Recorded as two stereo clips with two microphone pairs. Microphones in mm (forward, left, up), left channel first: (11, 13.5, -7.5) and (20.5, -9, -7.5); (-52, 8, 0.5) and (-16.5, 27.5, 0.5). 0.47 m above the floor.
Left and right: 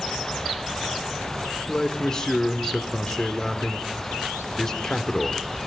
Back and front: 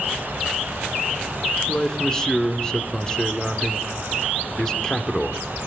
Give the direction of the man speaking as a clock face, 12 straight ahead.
7 o'clock.